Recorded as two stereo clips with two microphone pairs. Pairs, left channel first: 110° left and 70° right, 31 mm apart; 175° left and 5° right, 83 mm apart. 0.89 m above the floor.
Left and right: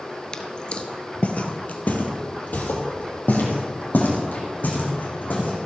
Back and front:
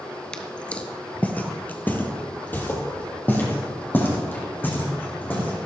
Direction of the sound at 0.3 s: 115° left.